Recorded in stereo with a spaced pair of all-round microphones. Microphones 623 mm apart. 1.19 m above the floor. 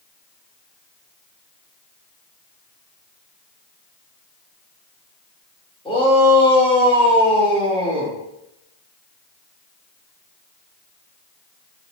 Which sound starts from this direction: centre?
A shout, at 5.8 s.